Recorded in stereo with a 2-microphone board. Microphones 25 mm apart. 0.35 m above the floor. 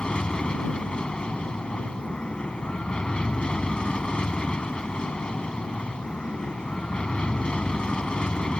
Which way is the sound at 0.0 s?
40° left (ahead or behind).